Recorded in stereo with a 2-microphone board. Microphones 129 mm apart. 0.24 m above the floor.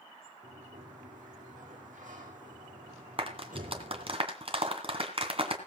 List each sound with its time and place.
0.4 s a sliding door: 85° right, 3.5 m
3.2 s a clap: 45° right (ahead or behind), 2.5 m